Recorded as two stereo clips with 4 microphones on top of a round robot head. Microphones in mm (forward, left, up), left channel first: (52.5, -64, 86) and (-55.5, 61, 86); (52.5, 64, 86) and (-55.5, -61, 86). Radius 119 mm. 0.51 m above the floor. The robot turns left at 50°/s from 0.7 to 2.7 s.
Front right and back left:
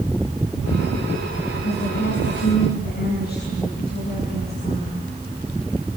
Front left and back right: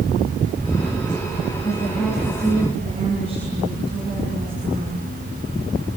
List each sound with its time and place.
1.6 s a woman speaking: 20° right, 7 m; by 5.1 s 75° right, 7 m